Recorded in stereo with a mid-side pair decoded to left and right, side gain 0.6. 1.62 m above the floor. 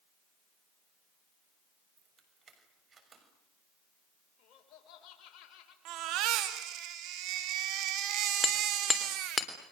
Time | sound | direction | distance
2.0 | keys jangling | 35° right | 6.5 m
4.4 | laughter | 60° left | 6.5 m
5.8 | a baby crying | 65° right | 2.5 m
8.4 | hammering | 20° left | 3.5 m